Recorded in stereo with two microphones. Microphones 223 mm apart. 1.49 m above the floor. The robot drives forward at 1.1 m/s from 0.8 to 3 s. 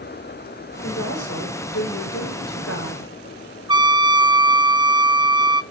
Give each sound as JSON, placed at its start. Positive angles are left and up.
{"t": 0.8, "sound": "a woman speaking", "side_deg": 75, "distance_m": 5.5}
{"t": 3.7, "sound": "a trumpet", "side_deg": -20, "distance_m": 0.6}